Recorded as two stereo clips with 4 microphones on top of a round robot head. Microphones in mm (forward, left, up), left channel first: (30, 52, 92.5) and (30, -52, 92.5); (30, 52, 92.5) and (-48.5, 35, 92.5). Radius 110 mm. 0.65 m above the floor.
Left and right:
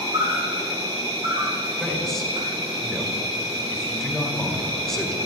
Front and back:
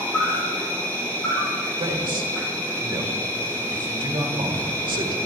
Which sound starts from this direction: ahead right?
An insect, at 0.0 s.